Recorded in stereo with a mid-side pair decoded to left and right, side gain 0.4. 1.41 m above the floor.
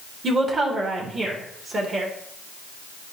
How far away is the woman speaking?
About 2.5 m.